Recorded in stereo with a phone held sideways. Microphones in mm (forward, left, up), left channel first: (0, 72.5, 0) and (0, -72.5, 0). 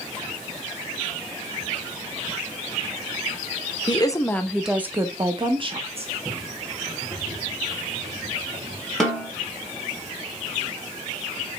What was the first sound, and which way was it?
A woman speaking, 35° left (ahead or behind).